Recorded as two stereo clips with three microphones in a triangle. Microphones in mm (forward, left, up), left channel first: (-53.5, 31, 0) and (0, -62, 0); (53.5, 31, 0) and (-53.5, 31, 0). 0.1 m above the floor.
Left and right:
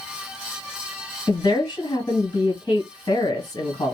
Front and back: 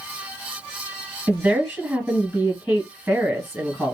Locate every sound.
1.3 s a woman speaking: 110° left, 1.7 m